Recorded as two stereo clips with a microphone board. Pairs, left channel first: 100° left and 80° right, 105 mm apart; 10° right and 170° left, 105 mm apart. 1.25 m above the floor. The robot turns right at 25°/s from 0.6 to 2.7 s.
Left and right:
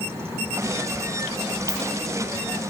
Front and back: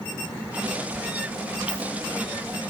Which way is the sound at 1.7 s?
20° left.